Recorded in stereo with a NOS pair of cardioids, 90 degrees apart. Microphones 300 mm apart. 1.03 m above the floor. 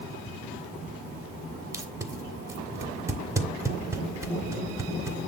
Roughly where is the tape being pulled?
Ahead.